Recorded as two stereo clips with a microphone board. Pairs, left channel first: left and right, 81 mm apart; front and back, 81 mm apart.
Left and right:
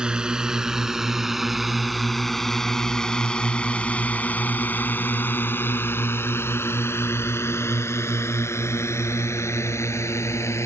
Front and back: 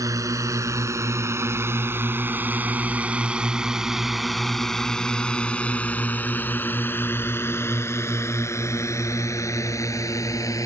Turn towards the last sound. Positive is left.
turn(degrees=40)